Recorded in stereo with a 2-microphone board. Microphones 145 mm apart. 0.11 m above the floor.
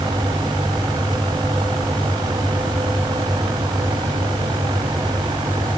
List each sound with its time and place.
Only background noise.